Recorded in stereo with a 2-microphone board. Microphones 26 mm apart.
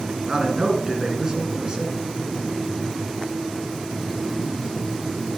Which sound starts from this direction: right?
A man speaking, at 0.3 s.